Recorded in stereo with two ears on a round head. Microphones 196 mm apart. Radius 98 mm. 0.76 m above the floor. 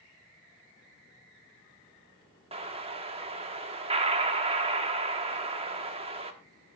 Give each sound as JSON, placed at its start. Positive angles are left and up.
{"t": 2.5, "sound": "an explosion", "side_deg": -30, "distance_m": 1.2}